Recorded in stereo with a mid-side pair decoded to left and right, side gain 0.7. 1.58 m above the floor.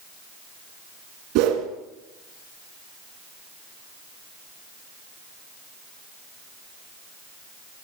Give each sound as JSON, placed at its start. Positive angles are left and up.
{"t": 1.4, "sound": "a whoosh", "azimuth_deg": -70, "distance_m": 3.0}